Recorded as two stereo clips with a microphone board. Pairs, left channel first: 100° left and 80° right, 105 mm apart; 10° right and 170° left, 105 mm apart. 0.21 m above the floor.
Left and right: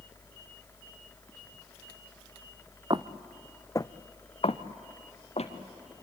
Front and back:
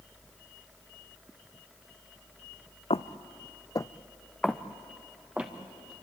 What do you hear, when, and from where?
2.9 s footsteps: 35° right, 1.0 m; by 5.5 s 90° left, 2.5 m